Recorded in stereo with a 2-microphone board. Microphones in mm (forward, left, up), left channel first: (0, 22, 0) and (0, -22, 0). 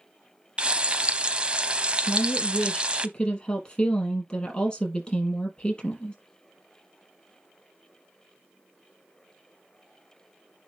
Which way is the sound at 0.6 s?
25° right (ahead or behind).